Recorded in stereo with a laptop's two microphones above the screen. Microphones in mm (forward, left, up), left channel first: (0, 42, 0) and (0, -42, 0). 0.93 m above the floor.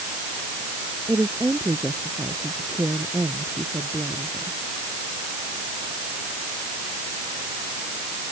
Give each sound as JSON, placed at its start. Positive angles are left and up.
{"t": 1.1, "sound": "a woman speaking", "side_deg": -35}